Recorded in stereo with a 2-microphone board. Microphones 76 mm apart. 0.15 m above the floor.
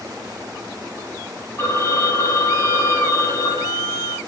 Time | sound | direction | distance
1.6 | a phone ringing | 45° left (ahead or behind) | 2.5 m